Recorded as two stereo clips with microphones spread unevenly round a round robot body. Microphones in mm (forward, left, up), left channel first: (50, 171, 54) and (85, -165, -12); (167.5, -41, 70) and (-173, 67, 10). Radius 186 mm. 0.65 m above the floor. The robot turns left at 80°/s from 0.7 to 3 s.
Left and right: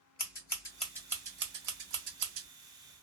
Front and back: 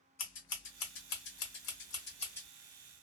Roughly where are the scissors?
Ahead left.